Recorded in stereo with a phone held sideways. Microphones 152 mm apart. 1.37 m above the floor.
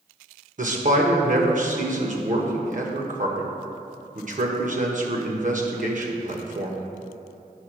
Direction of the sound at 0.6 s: 55° right (ahead or behind).